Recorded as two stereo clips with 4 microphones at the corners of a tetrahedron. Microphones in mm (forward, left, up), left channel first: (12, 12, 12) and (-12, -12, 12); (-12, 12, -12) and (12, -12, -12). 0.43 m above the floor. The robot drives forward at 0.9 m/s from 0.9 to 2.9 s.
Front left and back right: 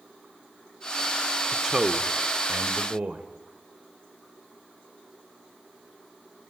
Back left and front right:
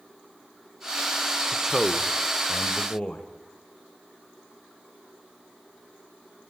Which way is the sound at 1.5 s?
70° right.